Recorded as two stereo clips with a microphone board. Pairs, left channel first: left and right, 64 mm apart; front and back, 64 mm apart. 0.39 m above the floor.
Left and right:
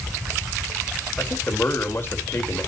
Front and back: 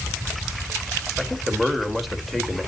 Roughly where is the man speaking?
Left.